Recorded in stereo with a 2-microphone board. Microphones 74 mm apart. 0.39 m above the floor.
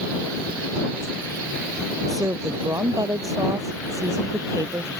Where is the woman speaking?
50° right (ahead or behind).